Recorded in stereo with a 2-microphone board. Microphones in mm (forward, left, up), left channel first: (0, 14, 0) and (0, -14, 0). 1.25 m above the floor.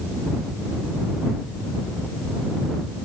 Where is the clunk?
No clunk in this recording.